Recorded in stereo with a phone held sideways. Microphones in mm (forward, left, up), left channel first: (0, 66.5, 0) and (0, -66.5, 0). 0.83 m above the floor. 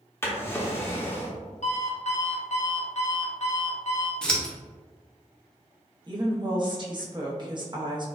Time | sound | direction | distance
0.2 | a drawer | 20° left (ahead or behind) | 0.7 m
1.6 | an alarm clock | 60° left (ahead or behind) | 0.7 m
4.2 | scissors | 5° left (ahead or behind) | 0.7 m
6.1 | a woman speaking | 35° right (ahead or behind) | 0.8 m